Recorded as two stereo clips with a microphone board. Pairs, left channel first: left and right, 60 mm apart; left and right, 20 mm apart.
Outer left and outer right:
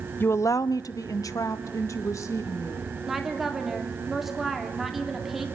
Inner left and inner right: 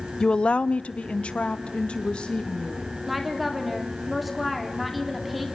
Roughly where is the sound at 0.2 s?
Left.